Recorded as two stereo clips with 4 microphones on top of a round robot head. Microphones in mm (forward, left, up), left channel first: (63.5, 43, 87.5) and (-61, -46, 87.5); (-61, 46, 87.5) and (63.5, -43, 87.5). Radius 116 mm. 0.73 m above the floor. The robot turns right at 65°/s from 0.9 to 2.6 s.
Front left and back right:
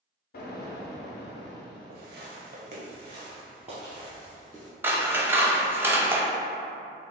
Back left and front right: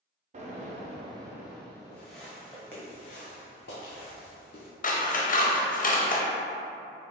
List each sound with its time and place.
0.3 s an explosion: 10° left, 0.6 m; by 2.1 s 90° left, 0.6 m
1.9 s footsteps: 140° right, 1.0 m; by 4.7 s 125° left, 1.7 m
4.8 s scissors: 140° left, 0.8 m